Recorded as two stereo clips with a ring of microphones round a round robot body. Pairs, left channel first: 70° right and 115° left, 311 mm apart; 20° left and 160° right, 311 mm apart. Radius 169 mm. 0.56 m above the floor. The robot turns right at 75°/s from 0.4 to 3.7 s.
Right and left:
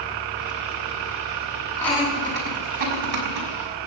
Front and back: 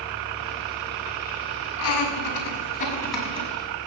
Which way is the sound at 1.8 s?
10° left.